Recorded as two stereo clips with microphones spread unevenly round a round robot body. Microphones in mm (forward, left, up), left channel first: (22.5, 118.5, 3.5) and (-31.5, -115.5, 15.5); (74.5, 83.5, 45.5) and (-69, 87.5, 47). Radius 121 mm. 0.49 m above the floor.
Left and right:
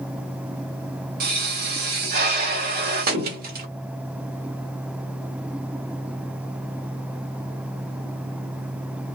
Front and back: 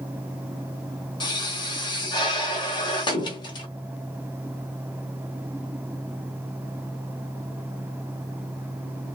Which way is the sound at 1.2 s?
55° right.